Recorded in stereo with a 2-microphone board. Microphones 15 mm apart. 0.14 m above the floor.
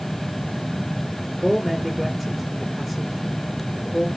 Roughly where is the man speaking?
Centre.